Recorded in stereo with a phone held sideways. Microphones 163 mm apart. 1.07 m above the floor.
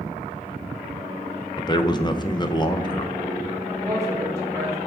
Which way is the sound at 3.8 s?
20° right (ahead or behind).